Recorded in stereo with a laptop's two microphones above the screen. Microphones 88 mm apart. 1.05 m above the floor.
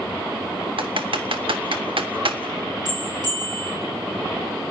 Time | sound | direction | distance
0.8 | typing on a keyboard | 75° right (ahead or behind) | 1.4 m
2.9 | a bell | 50° right (ahead or behind) | 7.5 m